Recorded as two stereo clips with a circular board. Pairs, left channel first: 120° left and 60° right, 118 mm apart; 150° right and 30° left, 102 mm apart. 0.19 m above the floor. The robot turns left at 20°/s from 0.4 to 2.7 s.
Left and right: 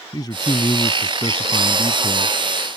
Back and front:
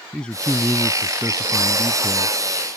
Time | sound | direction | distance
0.1 | a man speaking | 135° left | ?